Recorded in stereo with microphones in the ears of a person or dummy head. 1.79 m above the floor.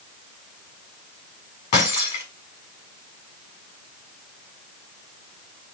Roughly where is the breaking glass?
Left.